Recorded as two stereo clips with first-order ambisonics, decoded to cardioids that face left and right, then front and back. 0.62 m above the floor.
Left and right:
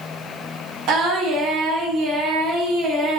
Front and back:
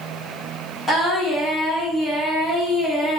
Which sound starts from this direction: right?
Singing, at 0.9 s.